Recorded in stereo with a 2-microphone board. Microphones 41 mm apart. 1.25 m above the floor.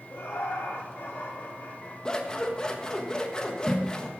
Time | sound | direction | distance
0.1 | laughter | 80° left | 3 m
2.0 | scissors | 20° left (ahead or behind) | 1.3 m